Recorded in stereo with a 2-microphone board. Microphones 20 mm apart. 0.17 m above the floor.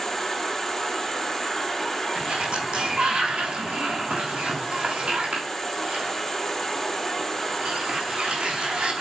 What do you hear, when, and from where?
0.0 s an insect: 20° left (ahead or behind), 4 m
2.1 s a sliding door: 65° right (ahead or behind), 3 m